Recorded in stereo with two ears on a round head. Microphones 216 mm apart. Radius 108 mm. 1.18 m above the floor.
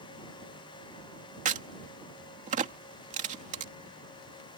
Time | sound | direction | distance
1.4 | a crack | 30° right (ahead or behind) | ?